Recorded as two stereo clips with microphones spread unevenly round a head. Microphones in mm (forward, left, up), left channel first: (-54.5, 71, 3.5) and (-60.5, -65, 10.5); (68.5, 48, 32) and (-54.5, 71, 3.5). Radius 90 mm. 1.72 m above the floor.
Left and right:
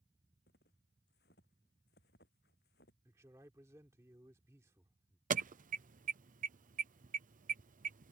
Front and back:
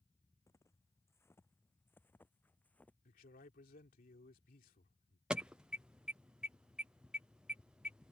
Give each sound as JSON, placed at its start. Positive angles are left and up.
{"t": 0.5, "sound": "footsteps", "azimuth_deg": 50}
{"t": 3.0, "sound": "a man speaking", "azimuth_deg": -20}
{"t": 5.3, "sound": "an alarm", "azimuth_deg": -110}